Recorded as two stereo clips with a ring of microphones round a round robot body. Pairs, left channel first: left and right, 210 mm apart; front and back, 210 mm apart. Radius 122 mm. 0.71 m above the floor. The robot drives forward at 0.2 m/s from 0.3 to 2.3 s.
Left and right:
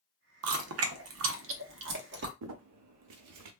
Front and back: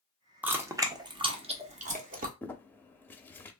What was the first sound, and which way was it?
Chewing, 95° right.